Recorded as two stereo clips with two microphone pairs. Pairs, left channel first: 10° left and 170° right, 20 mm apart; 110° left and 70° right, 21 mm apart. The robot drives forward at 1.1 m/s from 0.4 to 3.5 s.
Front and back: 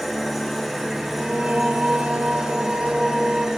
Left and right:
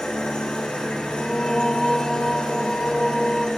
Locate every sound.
0.0 s an engine running: 90° left, 4 m; by 3.6 s 130° left, 5 m
1.1 s singing: 150° left, 0.7 m; by 3.5 s 175° left, 3 m